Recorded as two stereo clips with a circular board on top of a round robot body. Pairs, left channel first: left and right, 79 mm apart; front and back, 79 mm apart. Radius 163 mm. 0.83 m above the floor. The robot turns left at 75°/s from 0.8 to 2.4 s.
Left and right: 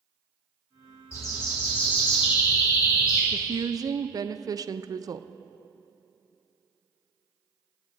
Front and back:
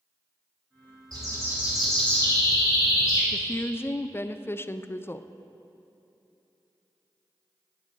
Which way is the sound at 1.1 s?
145° left.